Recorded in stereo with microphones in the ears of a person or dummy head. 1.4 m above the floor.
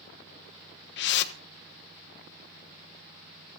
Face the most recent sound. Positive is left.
turn(degrees=65)  # may be behind; listen again after turning